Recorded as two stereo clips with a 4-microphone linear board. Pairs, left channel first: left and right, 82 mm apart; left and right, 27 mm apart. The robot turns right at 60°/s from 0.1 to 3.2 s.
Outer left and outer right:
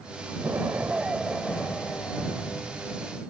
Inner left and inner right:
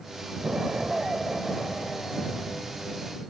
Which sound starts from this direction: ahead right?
An explosion, at 0.4 s.